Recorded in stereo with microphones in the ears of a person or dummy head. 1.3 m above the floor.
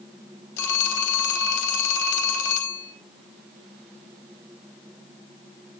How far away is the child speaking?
I don't hear a child speaking.